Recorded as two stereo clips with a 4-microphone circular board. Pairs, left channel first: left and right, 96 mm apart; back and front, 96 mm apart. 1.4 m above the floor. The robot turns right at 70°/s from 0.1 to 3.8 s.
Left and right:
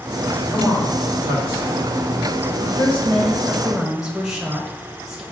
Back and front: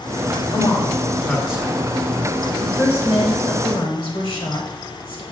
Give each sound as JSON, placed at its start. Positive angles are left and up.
{"t": 0.5, "sound": "a man speaking", "azimuth_deg": -155, "distance_m": 2.0}
{"t": 2.6, "sound": "a woman speaking", "azimuth_deg": 100, "distance_m": 1.3}